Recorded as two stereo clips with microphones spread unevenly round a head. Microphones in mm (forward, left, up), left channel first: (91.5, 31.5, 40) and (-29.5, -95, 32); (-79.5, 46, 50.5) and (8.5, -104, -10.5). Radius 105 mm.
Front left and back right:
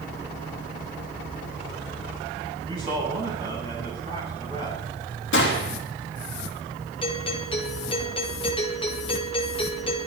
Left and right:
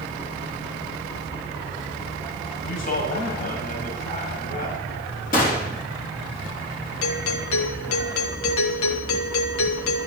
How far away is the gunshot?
About 3 m.